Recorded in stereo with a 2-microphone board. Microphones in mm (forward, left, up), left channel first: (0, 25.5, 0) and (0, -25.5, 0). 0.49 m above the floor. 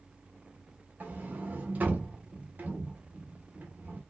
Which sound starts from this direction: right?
A sliding door, at 1.0 s.